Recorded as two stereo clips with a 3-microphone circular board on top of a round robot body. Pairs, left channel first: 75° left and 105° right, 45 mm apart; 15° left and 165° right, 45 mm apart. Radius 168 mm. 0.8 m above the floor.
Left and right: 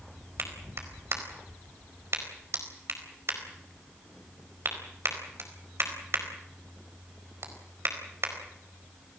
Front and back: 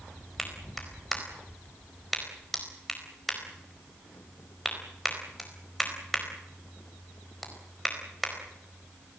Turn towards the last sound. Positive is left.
turn(degrees=-75)